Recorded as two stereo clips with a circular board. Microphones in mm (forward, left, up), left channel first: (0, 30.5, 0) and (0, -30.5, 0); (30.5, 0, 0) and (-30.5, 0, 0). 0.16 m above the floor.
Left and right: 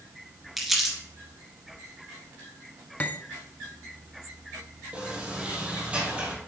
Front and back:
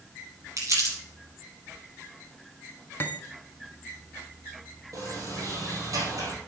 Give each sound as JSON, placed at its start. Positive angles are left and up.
{"t": 0.6, "sound": "crumpling", "azimuth_deg": 180, "distance_m": 3.0}
{"t": 3.0, "sound": "cutlery clinking", "azimuth_deg": 40, "distance_m": 0.8}
{"t": 4.9, "sound": "a sliding door", "azimuth_deg": -160, "distance_m": 3.0}